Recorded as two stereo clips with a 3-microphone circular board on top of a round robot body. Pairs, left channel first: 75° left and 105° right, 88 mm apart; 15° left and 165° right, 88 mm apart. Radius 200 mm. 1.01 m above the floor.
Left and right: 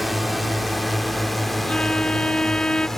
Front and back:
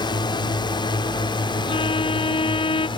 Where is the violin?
5° right.